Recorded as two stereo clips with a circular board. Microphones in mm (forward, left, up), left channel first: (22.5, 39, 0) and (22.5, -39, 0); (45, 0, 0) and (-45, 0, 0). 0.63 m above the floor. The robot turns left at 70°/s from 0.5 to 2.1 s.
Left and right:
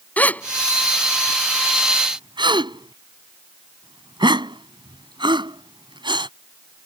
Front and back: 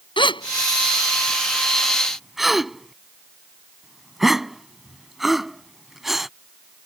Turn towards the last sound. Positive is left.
turn(degrees=-95)